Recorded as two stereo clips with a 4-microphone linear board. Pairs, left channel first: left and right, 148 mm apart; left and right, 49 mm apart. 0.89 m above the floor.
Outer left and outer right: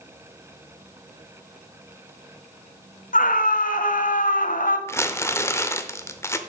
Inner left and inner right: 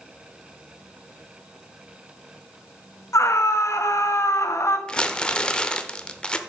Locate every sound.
3.1 s a scream: 70° left (ahead or behind), 1.2 m
4.9 s crumpling: 20° left (ahead or behind), 0.7 m